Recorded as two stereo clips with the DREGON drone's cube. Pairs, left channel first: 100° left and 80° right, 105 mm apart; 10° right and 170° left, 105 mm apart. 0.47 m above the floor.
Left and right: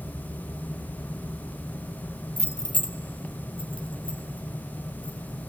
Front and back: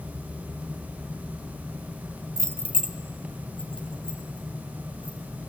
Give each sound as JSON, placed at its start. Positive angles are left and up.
{"t": 2.4, "sound": "keys jangling", "azimuth_deg": 170, "distance_m": 0.5}